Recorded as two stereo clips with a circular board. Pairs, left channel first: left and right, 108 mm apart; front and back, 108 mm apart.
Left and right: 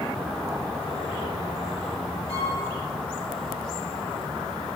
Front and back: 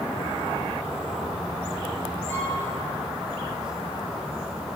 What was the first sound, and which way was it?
A violin, 70° left.